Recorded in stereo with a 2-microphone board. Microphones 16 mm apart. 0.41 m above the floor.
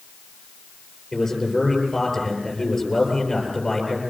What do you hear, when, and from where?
1.1 s a man speaking: 20° left (ahead or behind), 10 m